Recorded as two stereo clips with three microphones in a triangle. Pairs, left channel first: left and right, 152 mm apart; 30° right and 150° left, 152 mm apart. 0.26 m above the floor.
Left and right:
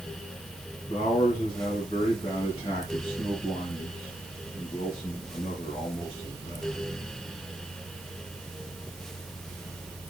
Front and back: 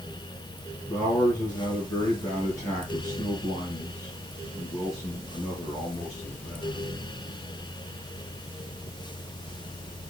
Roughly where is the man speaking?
Ahead left.